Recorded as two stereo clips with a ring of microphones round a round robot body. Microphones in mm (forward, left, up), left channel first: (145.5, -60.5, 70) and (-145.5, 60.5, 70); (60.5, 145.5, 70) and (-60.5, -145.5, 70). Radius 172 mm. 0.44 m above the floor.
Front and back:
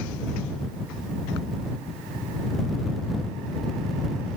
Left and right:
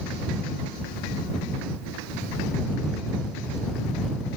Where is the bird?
No bird in this recording.